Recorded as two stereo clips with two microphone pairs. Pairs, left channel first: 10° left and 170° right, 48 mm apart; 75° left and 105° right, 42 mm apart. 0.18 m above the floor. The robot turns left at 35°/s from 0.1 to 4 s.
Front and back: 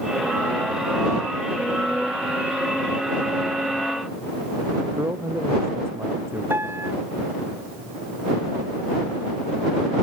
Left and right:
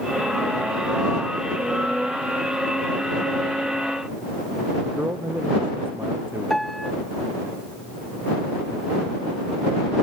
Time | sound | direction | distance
4.9 | a man speaking | 140° right | ?
6.5 | a piano | 160° left | ?